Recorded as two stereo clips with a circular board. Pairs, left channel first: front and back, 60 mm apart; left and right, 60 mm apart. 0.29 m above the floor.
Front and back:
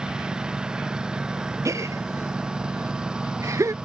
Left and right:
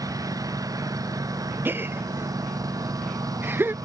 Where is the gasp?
145° right.